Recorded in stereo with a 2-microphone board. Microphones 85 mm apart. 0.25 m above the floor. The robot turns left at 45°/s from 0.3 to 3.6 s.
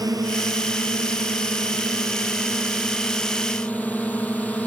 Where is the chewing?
No chewing in this recording.